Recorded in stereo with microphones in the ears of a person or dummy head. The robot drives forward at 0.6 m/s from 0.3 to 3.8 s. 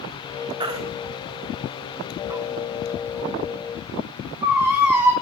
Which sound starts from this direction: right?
A baby crying, at 0.6 s.